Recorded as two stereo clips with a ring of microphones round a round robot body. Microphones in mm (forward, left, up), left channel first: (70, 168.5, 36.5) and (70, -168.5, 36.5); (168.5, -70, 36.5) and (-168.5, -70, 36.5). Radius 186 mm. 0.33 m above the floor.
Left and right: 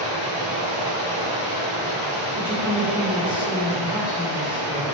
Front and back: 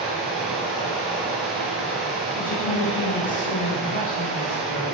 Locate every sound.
0.0 s running water: 90° right, 1.5 m
2.4 s a woman speaking: 10° right, 1.0 m